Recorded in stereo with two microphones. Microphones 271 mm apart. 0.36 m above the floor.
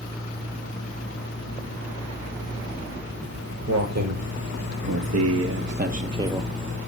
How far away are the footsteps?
About 1.4 m.